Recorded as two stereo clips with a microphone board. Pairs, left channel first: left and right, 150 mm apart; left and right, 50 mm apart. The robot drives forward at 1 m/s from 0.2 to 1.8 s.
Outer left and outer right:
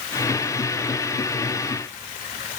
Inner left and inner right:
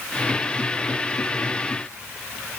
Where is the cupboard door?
I don't hear a cupboard door.